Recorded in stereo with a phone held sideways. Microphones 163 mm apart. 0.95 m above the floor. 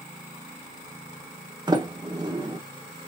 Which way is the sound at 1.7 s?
25° right (ahead or behind).